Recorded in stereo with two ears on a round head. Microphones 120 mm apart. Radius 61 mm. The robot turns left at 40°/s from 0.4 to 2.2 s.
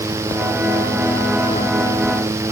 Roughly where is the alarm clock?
No alarm clock in this recording.